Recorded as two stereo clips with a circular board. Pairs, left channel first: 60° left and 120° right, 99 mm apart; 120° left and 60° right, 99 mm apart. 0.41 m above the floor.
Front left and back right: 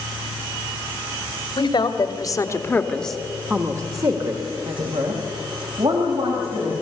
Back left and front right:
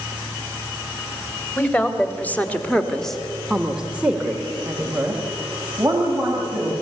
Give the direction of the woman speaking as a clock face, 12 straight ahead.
10 o'clock.